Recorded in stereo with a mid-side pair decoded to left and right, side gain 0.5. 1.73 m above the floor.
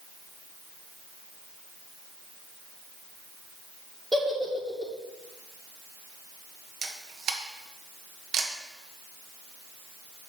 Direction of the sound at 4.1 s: 10° right.